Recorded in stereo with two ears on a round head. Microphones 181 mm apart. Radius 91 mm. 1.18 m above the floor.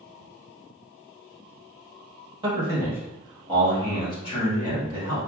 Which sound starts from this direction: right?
A man speaking, at 2.4 s.